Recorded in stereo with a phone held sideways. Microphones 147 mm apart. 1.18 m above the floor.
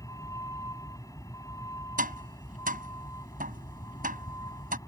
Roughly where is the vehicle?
Left.